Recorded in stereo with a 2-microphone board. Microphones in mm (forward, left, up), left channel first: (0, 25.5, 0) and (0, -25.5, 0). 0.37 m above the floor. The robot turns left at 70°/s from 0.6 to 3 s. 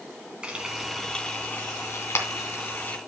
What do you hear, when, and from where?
0.4 s frying: 20° right (ahead or behind), 2.5 m; by 3.0 s 35° left (ahead or behind), 2.5 m